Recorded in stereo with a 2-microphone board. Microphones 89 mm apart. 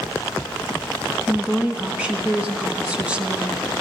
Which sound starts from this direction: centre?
A woman speaking, at 1.3 s.